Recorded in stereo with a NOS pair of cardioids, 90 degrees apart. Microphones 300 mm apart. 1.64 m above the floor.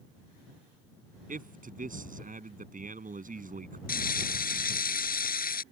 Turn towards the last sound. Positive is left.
turn(degrees=30)